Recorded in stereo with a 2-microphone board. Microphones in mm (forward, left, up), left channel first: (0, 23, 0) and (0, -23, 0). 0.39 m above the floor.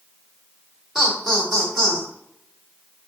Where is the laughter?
5° right (ahead or behind), 1.0 m.